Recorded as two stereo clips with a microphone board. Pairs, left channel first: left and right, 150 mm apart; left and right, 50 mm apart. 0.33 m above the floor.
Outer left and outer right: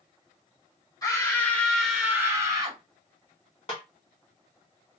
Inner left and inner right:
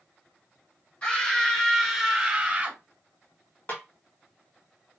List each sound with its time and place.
1.0 s a scream: 25° left (ahead or behind), 1.3 m; by 2.8 s 30° right (ahead or behind), 1.2 m
3.7 s a snare drum: 40° left (ahead or behind), 1.1 m